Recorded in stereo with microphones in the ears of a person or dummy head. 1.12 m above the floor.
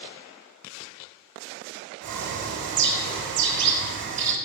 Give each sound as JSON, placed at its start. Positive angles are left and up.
{"t": 2.0, "sound": "a bird", "side_deg": -60, "distance_m": 0.9}